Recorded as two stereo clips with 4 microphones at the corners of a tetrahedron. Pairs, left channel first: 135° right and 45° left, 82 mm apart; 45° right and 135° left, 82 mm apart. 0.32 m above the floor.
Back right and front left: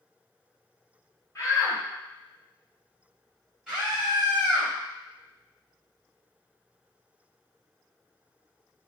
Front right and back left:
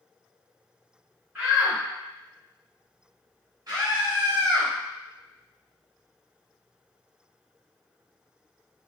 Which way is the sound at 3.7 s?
130° left.